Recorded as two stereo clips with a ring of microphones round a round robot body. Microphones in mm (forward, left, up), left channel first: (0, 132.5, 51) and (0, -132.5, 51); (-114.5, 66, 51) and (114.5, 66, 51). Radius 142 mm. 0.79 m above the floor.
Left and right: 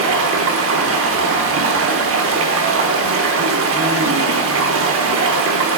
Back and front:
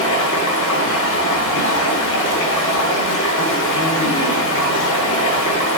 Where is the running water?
135° right, 0.8 m.